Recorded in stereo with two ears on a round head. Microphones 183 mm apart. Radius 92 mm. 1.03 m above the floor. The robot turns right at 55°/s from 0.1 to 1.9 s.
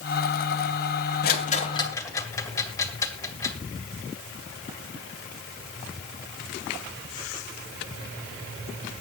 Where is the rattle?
50° left (ahead or behind), 2 m; by 3.5 s 15° left (ahead or behind), 2 m.